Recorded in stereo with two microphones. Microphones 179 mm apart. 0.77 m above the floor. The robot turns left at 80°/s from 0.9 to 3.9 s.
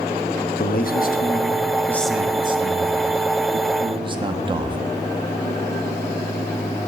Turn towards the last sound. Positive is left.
turn(degrees=-145)